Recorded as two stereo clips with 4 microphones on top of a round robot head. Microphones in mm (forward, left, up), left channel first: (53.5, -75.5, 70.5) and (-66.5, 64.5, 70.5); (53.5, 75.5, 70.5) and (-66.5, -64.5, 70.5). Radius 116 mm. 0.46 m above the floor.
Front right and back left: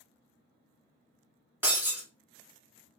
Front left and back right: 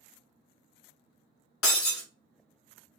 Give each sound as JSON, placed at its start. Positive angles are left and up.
{"t": 1.6, "sound": "breaking glass", "azimuth_deg": 50, "distance_m": 1.5}